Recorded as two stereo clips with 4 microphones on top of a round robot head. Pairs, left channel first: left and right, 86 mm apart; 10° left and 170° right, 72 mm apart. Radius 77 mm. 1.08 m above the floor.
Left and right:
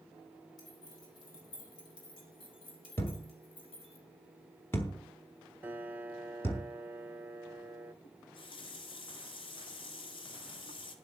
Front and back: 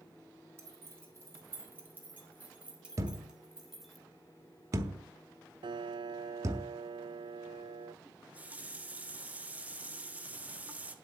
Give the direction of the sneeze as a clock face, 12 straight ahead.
I don't hear a sneeze.